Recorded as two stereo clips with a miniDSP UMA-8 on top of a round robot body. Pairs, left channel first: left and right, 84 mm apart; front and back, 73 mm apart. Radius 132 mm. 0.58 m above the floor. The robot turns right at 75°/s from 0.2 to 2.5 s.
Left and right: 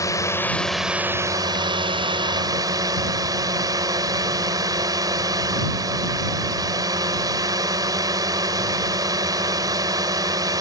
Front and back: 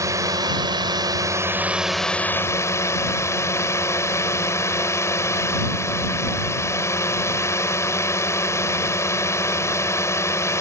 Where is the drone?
140° left; by 10.6 s 50° right.